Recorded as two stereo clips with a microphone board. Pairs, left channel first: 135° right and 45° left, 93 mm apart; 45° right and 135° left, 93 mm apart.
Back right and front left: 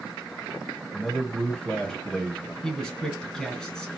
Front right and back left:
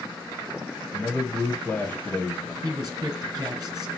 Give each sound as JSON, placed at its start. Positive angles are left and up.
{"t": 0.9, "sound": "a man speaking", "azimuth_deg": -70, "distance_m": 1.3}
{"t": 2.6, "sound": "a man speaking", "azimuth_deg": 150, "distance_m": 1.4}